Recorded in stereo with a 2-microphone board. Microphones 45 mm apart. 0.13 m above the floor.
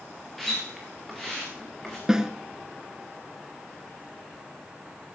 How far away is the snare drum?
About 1.2 m.